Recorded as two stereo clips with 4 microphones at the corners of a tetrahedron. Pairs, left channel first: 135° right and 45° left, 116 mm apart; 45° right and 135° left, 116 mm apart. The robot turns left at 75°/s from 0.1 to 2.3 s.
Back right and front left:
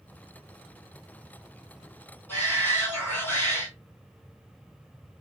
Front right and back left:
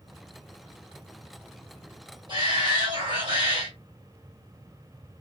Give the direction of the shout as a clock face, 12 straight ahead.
7 o'clock.